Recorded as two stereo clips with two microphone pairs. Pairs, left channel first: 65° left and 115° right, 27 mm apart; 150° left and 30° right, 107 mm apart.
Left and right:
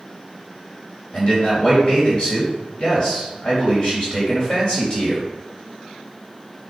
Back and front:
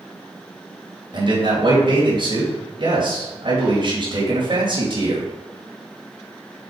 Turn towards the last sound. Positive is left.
turn(degrees=15)